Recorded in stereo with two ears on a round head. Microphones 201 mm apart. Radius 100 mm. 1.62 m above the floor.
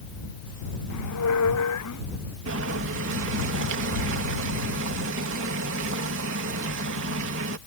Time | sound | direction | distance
0.9 | a squeak | 85° left | ?
2.5 | boiling | 60° right (ahead or behind) | ?